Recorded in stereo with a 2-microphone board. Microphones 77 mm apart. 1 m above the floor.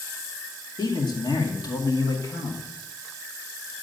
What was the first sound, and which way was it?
A man speaking, 70° left (ahead or behind).